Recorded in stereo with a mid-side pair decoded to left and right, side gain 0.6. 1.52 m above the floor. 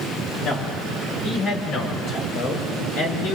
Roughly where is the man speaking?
Ahead left.